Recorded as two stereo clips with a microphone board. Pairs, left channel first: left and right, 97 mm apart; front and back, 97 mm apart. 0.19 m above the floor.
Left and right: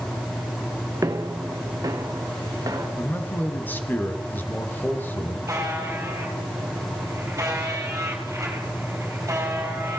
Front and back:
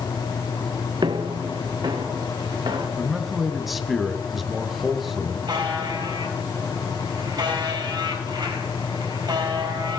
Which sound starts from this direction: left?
A man speaking, at 3.0 s.